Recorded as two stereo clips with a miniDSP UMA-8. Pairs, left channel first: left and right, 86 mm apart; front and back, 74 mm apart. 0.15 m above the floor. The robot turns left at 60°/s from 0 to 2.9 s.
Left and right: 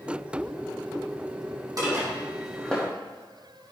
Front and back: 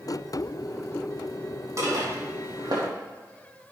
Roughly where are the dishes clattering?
Behind right.